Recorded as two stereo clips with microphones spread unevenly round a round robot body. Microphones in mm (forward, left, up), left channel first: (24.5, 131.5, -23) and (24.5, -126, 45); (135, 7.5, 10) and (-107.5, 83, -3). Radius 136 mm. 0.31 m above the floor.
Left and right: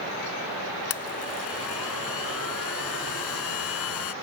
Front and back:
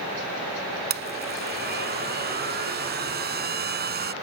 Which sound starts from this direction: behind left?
A blender, at 0.9 s.